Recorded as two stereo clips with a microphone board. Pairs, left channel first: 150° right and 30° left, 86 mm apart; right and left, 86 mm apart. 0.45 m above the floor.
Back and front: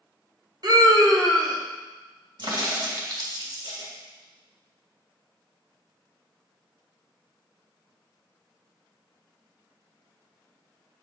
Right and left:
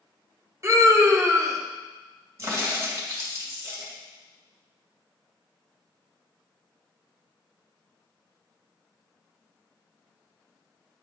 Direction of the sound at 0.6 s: 45° left.